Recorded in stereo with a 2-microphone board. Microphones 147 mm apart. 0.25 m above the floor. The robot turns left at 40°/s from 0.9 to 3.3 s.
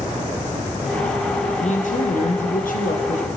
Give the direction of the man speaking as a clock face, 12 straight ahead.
8 o'clock.